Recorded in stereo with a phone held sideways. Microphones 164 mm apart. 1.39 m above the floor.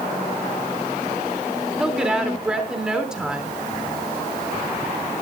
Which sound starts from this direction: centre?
A woman speaking, at 1.8 s.